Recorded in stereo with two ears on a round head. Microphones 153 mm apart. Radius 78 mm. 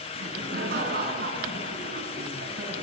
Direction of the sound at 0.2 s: 55° right (ahead or behind).